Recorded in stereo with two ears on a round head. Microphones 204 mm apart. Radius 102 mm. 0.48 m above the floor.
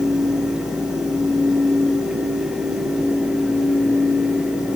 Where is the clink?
No clink in this recording.